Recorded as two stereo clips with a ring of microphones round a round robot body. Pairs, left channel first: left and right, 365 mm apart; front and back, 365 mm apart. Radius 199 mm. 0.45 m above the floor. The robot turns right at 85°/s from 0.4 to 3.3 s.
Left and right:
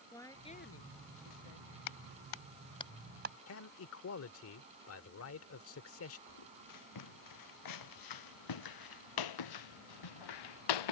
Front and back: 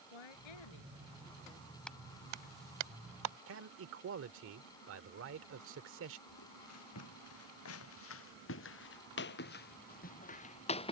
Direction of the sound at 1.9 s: 85° left.